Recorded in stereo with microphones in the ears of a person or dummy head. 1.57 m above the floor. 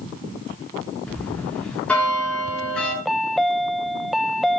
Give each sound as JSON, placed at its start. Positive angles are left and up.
{"t": 1.1, "sound": "a bell", "side_deg": 5, "distance_m": 5.0}
{"t": 3.0, "sound": "a chime", "side_deg": -5, "distance_m": 0.5}